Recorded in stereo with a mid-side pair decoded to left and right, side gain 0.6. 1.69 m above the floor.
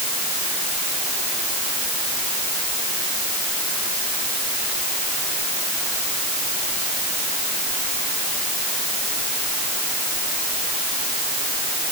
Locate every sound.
Only background noise.